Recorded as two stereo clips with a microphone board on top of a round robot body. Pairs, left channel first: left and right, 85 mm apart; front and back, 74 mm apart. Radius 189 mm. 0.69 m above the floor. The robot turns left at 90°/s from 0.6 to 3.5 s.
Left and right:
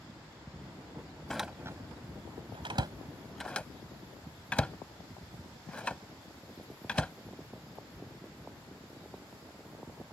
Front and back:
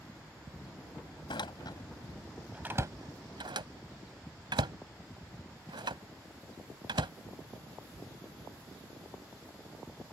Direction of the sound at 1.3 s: 5° left.